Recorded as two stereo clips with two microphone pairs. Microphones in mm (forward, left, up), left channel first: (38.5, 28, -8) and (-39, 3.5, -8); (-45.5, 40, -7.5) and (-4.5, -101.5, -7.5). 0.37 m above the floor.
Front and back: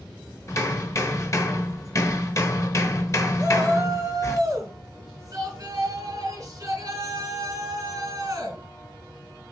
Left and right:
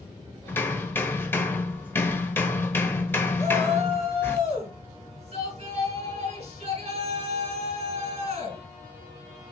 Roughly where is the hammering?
Ahead left.